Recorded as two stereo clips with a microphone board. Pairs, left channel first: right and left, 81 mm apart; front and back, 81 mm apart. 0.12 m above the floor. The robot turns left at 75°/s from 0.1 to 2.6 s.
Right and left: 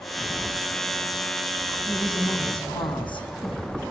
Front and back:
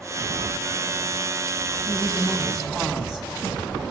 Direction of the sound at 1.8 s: 40° right.